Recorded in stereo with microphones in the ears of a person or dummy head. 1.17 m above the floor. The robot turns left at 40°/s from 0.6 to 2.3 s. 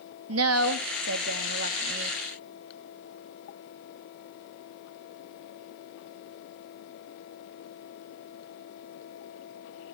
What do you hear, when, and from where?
0.3 s a woman speaking: 80° right, 1.8 m; by 2.2 s 145° right, 1.8 m